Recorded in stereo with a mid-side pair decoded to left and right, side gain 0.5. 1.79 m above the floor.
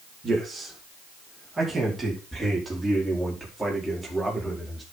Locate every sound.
0.2 s a man speaking: 30° right, 5.5 m; by 4.8 s 5° right, 5 m